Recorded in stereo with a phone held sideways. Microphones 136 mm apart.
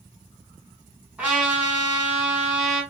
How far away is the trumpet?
About 2.0 m.